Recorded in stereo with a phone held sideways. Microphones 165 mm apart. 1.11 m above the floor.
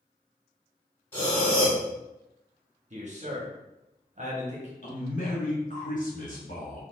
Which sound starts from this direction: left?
A man speaking, at 4.8 s.